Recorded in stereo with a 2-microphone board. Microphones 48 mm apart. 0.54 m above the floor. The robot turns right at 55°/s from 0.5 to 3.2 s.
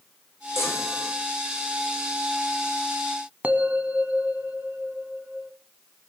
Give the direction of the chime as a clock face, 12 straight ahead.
8 o'clock.